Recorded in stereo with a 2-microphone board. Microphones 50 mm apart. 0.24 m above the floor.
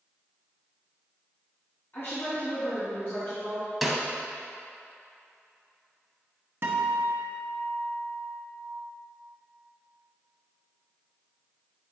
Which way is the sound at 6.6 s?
55° right (ahead or behind).